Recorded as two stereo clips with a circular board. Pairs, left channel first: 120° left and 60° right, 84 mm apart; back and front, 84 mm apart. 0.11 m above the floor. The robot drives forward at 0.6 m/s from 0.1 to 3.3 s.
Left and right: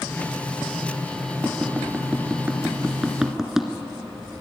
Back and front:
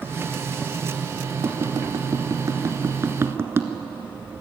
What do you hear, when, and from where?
1.4 s tapping: 5° left, 2 m; by 3.7 s 20° left, 1.5 m